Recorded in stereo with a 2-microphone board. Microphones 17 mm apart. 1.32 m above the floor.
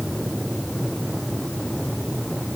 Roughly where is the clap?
I don't hear a clap.